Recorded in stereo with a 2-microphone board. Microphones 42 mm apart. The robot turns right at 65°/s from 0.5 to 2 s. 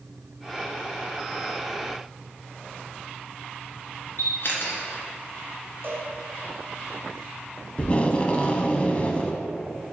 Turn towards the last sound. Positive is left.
turn(degrees=30)  # may be behind; listen again after turning